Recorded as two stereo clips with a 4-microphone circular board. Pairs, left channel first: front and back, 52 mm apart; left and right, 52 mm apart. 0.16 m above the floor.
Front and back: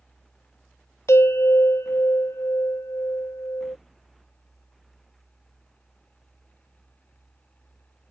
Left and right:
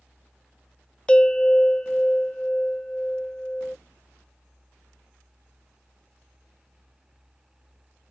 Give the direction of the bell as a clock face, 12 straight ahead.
11 o'clock.